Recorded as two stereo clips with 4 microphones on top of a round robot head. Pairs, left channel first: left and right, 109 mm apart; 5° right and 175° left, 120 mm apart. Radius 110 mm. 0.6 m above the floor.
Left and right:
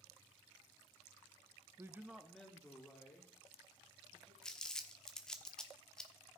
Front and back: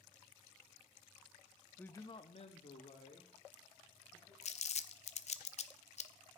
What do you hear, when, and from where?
1.8 s a man speaking: 70° right, 0.6 m; by 4.3 s 20° left, 3 m
4.4 s crumpling: 5° left, 1.0 m